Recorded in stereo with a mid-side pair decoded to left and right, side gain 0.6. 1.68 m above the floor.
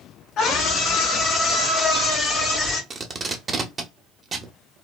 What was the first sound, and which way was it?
A scream, 40° left.